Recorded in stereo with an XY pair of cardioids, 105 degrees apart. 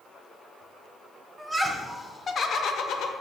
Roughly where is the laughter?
Ahead.